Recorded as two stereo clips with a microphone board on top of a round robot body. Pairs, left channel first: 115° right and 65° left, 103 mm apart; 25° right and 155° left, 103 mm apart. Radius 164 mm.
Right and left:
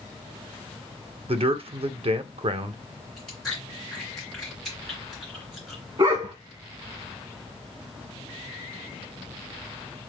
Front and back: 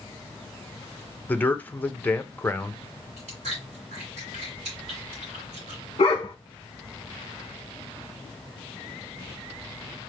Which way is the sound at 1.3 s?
50° left.